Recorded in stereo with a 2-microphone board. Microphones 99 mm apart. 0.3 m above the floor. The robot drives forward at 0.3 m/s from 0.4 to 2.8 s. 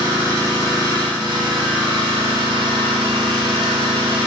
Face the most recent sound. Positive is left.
turn(degrees=-65)  # may be behind; listen again after turning